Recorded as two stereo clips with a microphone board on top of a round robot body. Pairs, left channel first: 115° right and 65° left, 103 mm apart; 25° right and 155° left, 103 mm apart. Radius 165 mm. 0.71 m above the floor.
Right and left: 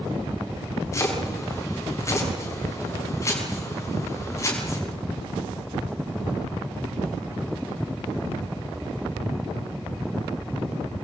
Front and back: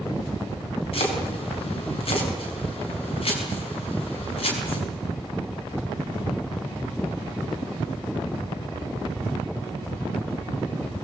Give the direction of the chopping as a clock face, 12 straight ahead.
2 o'clock.